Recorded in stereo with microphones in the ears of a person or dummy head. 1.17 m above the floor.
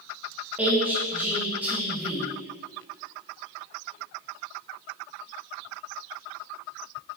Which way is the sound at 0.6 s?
5° right (ahead or behind).